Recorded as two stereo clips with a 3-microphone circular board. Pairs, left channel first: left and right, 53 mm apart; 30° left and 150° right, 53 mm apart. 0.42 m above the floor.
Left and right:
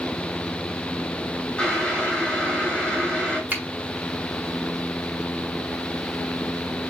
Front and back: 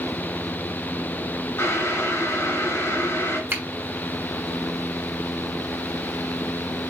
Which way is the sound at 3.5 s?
130° right.